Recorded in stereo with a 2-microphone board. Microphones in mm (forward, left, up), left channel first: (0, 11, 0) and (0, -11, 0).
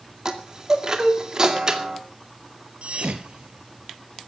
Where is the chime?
30° right (ahead or behind), 2 m.